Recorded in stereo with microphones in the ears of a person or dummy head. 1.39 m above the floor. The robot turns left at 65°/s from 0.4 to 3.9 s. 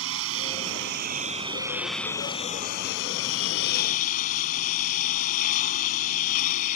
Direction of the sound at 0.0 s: 85° right.